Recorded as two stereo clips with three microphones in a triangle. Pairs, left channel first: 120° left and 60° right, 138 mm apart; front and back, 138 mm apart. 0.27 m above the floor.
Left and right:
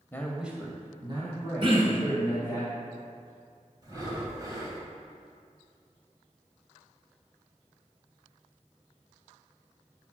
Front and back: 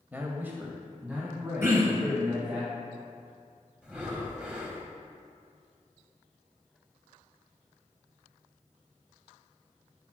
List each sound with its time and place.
0.1 s a man speaking: 135° left, 1.0 m; by 2.6 s 95° right, 4 m
1.6 s throat clearing: 110° right, 2 m
3.8 s breathing: 100° right, 1.8 m